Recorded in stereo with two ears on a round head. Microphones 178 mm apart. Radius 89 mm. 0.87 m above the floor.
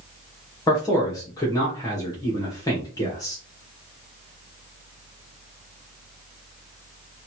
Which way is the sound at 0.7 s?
20° left (ahead or behind).